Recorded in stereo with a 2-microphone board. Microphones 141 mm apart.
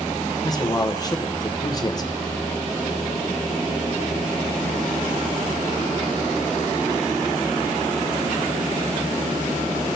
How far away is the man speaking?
About 0.8 m.